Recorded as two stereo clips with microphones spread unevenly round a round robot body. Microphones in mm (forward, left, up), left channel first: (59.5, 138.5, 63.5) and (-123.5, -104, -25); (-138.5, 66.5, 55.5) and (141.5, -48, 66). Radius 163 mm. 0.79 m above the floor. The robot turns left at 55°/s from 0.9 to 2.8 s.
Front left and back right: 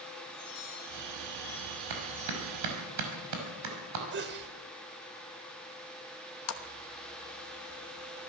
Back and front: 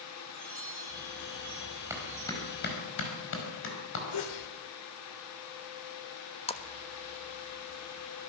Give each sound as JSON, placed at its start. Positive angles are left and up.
{"t": 0.3, "sound": "a chime", "azimuth_deg": 25, "distance_m": 10.0}
{"t": 1.9, "sound": "a clap", "azimuth_deg": -105, "distance_m": 5.0}
{"t": 4.1, "sound": "a sneeze", "azimuth_deg": 180, "distance_m": 2.5}
{"t": 6.5, "sound": "a splash", "azimuth_deg": 95, "distance_m": 1.3}